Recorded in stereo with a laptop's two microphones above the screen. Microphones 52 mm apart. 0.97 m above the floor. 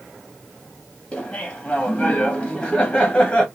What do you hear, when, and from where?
1.1 s laughter: 15° left (ahead or behind), 0.6 m